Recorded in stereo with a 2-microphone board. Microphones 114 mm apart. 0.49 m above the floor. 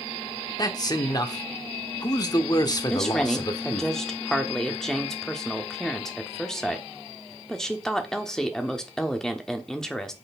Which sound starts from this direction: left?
A man speaking, at 0.6 s.